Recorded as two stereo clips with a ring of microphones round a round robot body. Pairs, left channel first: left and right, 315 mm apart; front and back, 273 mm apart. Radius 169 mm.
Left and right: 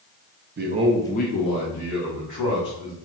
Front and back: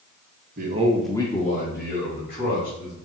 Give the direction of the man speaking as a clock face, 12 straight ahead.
4 o'clock.